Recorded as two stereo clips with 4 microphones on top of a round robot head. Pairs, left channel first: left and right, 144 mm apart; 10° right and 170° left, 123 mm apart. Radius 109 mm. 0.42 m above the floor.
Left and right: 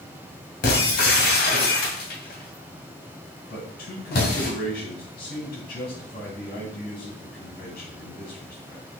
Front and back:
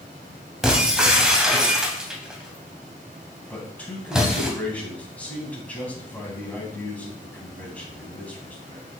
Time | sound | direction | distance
0.6 | breaking glass | 85° left | 2 m
3.5 | a man speaking | 65° left | 3.5 m